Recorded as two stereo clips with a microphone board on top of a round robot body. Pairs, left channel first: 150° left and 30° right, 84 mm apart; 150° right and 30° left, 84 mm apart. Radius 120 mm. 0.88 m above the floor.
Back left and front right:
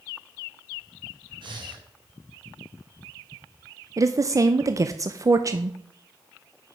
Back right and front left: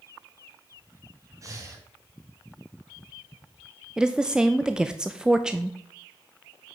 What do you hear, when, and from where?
1.4 s breathing: 15° right, 2 m
4.0 s a woman speaking: 45° right, 0.6 m